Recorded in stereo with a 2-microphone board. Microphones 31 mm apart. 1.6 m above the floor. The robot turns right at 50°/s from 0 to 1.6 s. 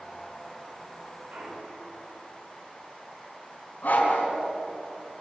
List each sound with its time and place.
1.3 s a clunk: 70° right (ahead or behind), 5 m; by 2.0 s 60° right (ahead or behind), 5 m
3.8 s a dog barking: 60° left (ahead or behind), 4.5 m